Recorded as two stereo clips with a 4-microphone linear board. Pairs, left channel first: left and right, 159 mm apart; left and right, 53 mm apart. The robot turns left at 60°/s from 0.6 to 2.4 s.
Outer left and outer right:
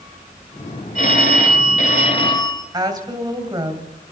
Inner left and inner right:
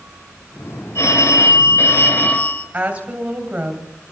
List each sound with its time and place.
0.9 s a phone ringing: 115° left, 1.8 m; by 2.6 s 30° left, 1.8 m
2.7 s a woman speaking: 25° right (ahead or behind), 3 m